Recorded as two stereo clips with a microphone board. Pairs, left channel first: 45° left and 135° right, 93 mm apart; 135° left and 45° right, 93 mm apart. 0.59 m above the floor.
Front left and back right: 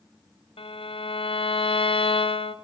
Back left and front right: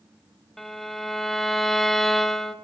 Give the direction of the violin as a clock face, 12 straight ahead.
10 o'clock.